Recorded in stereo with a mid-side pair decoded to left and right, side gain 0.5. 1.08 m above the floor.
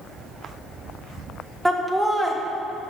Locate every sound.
1.6 s laughter: 15° right, 1.1 m